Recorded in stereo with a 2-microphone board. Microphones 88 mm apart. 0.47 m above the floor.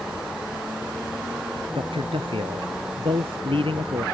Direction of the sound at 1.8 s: 80° right.